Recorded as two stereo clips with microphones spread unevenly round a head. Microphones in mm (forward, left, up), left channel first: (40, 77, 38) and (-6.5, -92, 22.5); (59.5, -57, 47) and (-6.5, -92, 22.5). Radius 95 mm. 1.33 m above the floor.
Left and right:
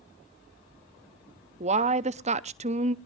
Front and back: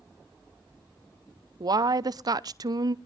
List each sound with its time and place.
1.6 s a woman speaking: 155° right, 0.7 m